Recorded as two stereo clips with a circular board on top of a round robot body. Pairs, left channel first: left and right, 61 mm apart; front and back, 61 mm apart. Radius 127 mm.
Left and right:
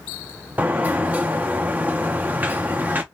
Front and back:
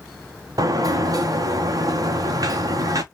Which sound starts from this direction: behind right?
A sliding door, at 0.6 s.